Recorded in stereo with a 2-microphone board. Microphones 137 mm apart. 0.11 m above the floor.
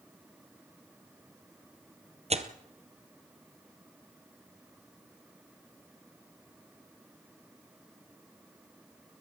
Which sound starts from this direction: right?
Tearing paper, at 2.3 s.